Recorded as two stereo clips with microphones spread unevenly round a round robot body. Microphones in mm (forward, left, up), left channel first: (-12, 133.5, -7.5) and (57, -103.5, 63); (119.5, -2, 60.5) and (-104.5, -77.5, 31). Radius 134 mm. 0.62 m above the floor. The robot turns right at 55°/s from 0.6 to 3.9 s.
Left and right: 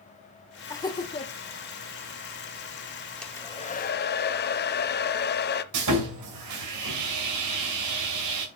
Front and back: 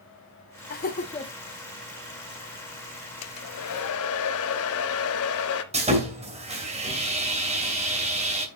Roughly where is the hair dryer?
Ahead.